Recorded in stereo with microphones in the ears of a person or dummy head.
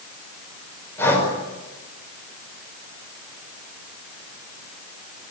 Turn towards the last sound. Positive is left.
turn(degrees=15)  # may be behind; listen again after turning